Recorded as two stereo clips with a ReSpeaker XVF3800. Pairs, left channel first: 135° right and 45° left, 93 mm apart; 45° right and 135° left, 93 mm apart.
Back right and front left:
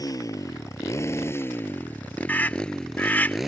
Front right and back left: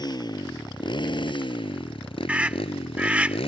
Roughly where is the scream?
Behind.